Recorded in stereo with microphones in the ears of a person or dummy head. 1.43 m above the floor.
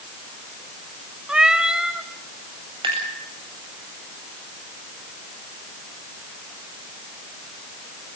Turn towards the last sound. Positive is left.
turn(degrees=-25)  # may be behind; listen again after turning